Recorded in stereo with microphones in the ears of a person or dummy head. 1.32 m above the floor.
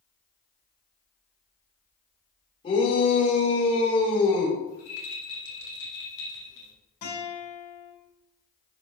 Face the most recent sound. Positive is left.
turn(degrees=85)